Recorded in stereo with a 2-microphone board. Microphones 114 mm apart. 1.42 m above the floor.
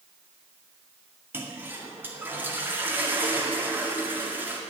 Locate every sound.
1.3 s a toilet flushing: 20° right (ahead or behind), 2 m